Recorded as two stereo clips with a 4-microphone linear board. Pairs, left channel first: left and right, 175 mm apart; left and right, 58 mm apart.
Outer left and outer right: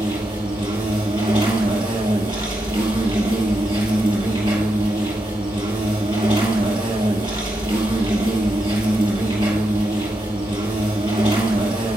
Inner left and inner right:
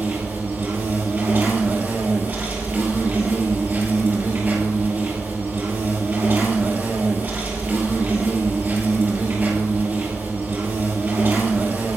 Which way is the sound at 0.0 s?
25° right (ahead or behind).